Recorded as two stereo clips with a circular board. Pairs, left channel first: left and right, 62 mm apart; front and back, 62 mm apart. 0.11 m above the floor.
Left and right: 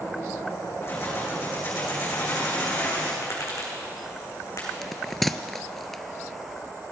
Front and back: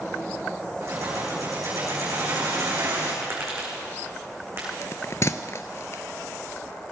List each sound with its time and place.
0.8 s keys jangling: 140° left, 5 m; by 3.1 s 150° left, 7 m
3.2 s tapping: 130° left, 4 m
4.8 s a bell: 5° left, 0.5 m